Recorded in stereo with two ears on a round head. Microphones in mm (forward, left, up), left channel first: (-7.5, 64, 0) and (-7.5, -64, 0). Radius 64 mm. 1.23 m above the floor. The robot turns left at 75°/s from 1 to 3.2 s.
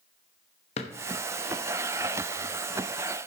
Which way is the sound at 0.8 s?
45° left (ahead or behind).